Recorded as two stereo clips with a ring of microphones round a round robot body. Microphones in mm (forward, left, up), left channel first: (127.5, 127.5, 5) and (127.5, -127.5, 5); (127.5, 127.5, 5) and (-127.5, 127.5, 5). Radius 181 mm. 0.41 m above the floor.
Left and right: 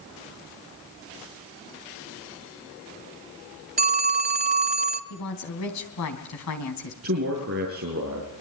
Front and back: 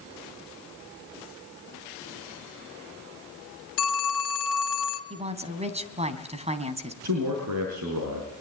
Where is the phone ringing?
35° right, 2 m.